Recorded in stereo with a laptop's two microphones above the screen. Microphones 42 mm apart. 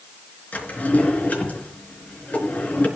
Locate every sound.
0.5 s a drawer: 40° left (ahead or behind), 4 m